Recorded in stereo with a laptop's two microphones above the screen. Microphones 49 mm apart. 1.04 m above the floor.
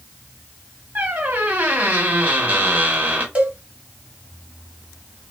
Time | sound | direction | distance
0.9 | a squeak | 40° right (ahead or behind) | 1.0 m
3.4 | a cowbell | 30° right (ahead or behind) | 1.1 m